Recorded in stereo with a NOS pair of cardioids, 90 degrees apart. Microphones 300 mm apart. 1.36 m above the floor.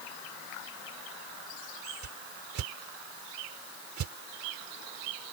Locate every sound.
2.0 s a whoosh: 65° right